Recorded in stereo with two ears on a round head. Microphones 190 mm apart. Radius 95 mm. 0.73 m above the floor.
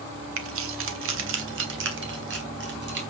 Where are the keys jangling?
75° right (ahead or behind), 1.8 m; by 3.0 s 60° right (ahead or behind), 4 m.